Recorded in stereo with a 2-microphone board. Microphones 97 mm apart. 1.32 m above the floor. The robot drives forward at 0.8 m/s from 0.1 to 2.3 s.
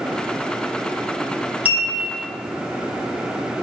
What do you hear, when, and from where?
1.6 s a clink: 15° right (ahead or behind), 1.0 m; by 2.3 s 25° right (ahead or behind), 0.6 m